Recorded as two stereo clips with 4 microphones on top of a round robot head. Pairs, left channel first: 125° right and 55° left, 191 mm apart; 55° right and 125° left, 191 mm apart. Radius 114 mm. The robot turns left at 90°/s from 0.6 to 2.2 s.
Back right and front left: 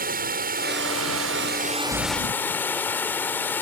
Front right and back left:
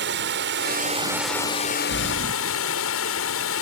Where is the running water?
95° left; by 3.6 s 45° right.